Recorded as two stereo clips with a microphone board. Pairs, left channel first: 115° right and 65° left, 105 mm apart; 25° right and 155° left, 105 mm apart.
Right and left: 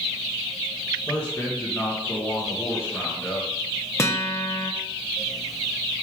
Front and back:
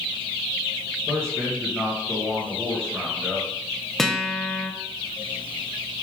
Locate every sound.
1.1 s a man speaking: 85° right, 1.2 m
4.0 s a guitar: 105° right, 0.6 m